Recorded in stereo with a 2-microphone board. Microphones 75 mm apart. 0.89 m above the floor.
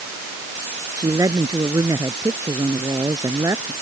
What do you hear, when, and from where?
1.0 s a woman speaking: 55° right (ahead or behind); by 3.7 s 45° right (ahead or behind)